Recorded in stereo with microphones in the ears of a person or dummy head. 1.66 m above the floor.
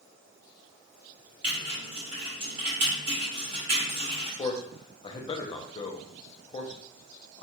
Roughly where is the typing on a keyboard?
Right.